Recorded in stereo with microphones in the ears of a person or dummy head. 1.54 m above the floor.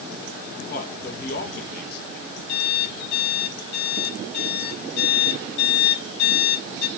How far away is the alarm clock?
About 4.5 m.